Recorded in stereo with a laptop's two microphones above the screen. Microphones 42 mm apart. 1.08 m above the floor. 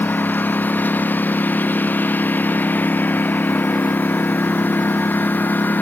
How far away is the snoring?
No snoring in this recording.